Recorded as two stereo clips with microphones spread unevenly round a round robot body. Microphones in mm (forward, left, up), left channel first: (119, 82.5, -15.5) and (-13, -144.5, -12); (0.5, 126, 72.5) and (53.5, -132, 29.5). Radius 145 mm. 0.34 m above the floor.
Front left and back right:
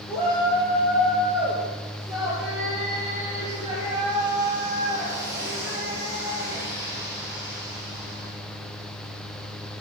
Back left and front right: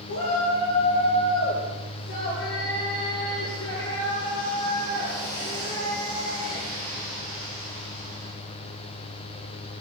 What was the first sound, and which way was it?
A shout, 140° left.